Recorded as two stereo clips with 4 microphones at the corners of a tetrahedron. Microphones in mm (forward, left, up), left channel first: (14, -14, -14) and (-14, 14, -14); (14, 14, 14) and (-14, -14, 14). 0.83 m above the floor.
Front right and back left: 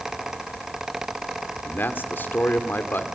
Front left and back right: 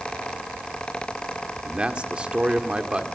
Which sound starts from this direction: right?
A man speaking, at 1.6 s.